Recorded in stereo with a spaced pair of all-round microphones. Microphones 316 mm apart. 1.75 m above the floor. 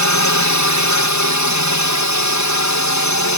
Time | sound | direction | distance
0.0 | a drone | 60° left (ahead or behind) | ?